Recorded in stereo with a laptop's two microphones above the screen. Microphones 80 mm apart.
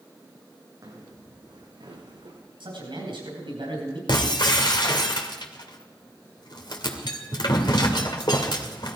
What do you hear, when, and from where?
0.8 s footsteps: 50° right (ahead or behind), 3.5 m; by 2.4 s 70° right (ahead or behind), 3.5 m
2.6 s a man speaking: 80° right, 5 m
4.1 s breaking glass: 65° left (ahead or behind), 1.9 m